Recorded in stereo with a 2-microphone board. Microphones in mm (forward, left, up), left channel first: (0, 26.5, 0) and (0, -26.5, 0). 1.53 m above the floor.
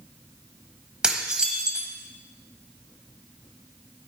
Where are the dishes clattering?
15° right (ahead or behind), 1.1 m.